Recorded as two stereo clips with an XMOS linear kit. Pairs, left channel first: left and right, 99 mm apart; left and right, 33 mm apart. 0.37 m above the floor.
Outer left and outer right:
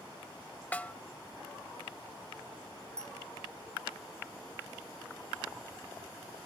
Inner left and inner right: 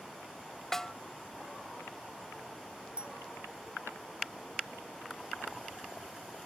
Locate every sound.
0.7 s a snare drum: 15° left (ahead or behind)
3.0 s a bell: 35° right (ahead or behind)